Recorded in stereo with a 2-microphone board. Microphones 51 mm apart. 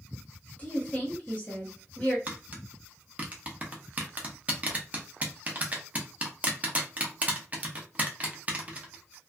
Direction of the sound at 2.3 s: 25° right (ahead or behind).